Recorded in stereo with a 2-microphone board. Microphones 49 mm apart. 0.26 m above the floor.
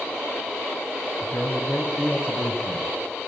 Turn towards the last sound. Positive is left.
turn(degrees=45)  # may be behind; listen again after turning